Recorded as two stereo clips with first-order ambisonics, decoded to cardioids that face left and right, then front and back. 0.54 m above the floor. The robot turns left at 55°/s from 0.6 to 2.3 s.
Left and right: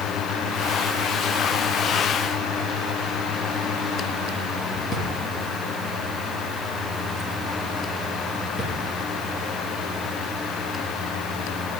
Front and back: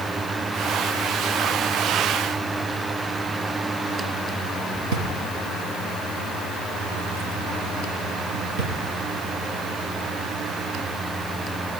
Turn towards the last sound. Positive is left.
turn(degrees=155)